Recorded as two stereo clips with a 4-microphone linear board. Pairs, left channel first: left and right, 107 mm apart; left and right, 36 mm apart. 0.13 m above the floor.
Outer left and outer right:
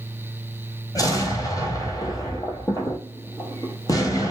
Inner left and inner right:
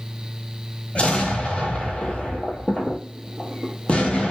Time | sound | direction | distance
0.9 | an explosion | 35° left (ahead or behind) | 0.9 m